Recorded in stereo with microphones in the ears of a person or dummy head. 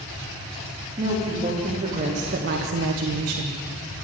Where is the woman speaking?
35° right (ahead or behind), 2.5 m; by 3.6 s 55° right (ahead or behind), 1.1 m.